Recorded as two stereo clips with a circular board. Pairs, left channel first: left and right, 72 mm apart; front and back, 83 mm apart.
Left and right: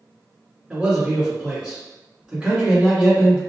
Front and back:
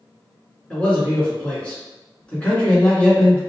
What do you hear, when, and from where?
0.7 s a man speaking: 45° right, 1.5 m